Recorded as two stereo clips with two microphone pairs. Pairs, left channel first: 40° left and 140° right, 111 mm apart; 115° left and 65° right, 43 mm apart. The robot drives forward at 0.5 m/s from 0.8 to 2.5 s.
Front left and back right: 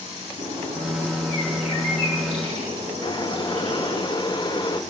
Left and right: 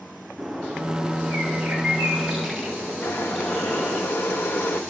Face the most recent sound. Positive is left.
turn(degrees=90)